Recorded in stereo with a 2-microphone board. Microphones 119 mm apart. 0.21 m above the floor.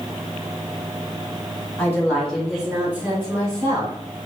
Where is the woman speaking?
20° left (ahead or behind), 1.6 m; by 3.9 s 30° right (ahead or behind), 2.5 m.